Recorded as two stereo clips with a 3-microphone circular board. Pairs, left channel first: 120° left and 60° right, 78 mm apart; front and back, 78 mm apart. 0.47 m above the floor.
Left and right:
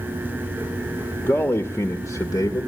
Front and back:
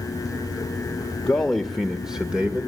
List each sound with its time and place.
1.2 s a man speaking: 70° left, 1.7 m; by 2.7 s 115° left, 2.0 m